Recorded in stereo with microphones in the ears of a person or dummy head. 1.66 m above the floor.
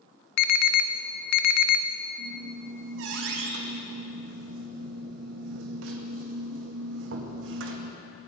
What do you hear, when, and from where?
0.4 s an alarm: 65° left (ahead or behind), 0.6 m
2.2 s a squeak: 70° right (ahead or behind), 1.7 m